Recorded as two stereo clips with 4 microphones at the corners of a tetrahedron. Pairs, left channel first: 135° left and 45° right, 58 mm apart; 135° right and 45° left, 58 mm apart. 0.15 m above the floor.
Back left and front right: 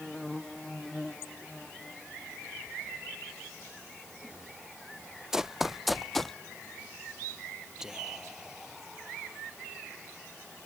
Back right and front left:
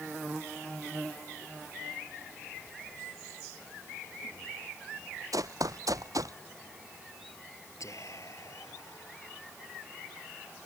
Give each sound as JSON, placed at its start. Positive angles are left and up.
{"t": 5.3, "sound": "running footsteps", "azimuth_deg": 40}
{"t": 7.8, "sound": "whispering", "azimuth_deg": -125}